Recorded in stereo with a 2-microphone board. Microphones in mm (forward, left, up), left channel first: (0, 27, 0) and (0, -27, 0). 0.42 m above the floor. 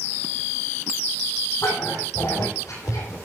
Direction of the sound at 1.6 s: 80° left.